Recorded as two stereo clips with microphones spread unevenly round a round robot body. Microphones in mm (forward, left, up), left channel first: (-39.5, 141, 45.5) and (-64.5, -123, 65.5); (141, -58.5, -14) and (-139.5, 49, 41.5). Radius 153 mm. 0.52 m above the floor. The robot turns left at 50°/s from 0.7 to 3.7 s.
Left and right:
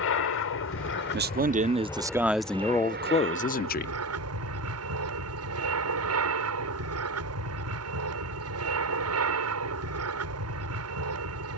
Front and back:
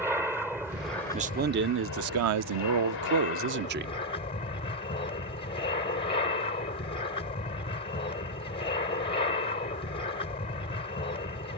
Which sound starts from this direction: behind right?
A man speaking, at 1.1 s.